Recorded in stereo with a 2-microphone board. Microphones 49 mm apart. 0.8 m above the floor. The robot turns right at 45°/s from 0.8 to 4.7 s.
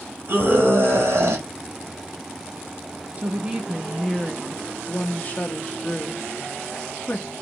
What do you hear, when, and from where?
0.3 s a scream: 45° right (ahead or behind), 1.7 m; by 1.4 s 55° right (ahead or behind), 1.7 m
3.2 s a woman speaking: 35° right, 1.0 m; by 7.3 s 35° left, 1.0 m